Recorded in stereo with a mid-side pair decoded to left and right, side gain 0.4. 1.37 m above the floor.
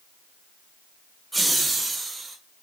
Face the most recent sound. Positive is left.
turn(degrees=-40)